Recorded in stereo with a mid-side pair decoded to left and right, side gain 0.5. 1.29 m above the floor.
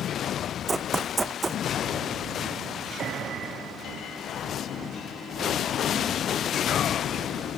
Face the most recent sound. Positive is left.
turn(degrees=-25)